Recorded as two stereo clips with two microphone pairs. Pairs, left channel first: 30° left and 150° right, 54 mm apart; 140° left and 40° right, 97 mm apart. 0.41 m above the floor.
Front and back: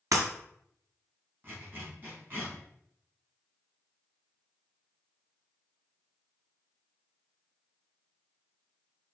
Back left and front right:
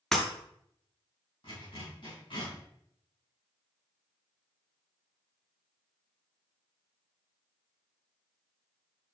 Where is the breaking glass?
135° right, 1.5 m.